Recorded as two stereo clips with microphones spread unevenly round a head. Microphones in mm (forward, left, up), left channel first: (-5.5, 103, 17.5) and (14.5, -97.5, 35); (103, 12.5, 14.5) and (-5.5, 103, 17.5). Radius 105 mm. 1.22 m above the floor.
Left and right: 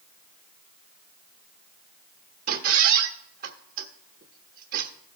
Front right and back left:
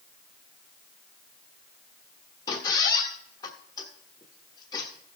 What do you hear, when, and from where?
2.5 s a squeak: 100° right, 1.0 m